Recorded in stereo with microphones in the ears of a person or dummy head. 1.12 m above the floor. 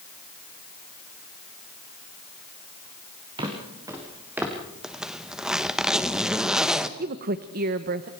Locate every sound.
3.4 s footsteps: 20° right (ahead or behind), 4 m; by 4.5 s 5° right (ahead or behind), 3.5 m
4.8 s a zipper: centre (ahead or behind), 1.0 m
7.0 s a woman speaking: 45° right (ahead or behind), 0.9 m